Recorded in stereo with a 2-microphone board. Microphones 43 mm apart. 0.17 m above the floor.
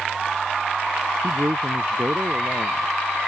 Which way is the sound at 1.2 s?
60° right (ahead or behind).